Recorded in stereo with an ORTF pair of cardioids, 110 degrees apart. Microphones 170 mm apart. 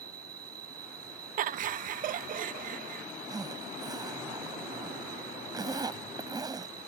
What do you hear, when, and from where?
0.0 s an insect: 65° right
1.4 s laughter: 55° right
3.3 s a zipper: 20° right